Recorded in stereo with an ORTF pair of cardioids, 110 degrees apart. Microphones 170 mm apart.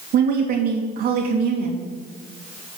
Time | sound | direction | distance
0.1 | a woman speaking | 60° right | 3 m